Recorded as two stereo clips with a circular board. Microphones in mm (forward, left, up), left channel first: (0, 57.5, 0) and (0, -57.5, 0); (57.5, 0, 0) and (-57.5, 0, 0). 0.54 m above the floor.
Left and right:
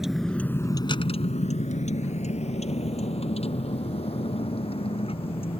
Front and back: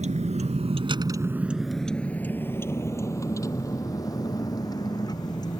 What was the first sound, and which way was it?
A vehicle, 175° right.